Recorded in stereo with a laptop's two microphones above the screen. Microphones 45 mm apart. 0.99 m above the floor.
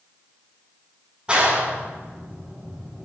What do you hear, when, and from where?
1.3 s a clap: 20° right (ahead or behind), 7.5 m